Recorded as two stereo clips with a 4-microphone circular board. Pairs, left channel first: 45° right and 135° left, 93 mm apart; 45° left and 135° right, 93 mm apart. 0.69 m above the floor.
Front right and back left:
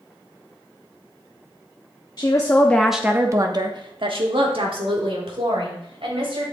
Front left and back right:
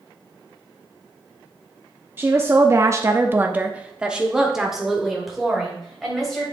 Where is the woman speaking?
75° right, 0.9 m; by 6.4 s 135° left, 3.5 m.